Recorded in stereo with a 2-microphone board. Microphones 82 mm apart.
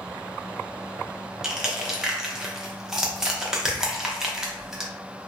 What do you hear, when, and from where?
1.4 s crushing: 5° right (ahead or behind), 0.6 m